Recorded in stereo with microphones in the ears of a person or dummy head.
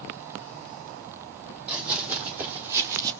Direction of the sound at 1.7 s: 5° right (ahead or behind).